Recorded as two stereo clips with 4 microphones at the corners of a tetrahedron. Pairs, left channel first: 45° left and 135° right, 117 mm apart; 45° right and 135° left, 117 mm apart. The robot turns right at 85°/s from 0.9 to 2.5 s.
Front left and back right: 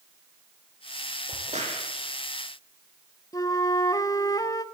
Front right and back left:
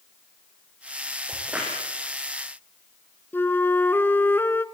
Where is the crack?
170° right, 7.5 m; by 1.8 s 125° right, 7.5 m.